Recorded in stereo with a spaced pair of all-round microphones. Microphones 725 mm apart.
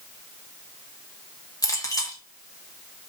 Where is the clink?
5° left (ahead or behind), 2.0 m.